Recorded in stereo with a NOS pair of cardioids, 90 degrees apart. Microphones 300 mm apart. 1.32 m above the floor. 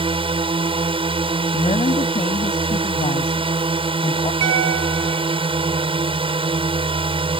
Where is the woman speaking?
20° left.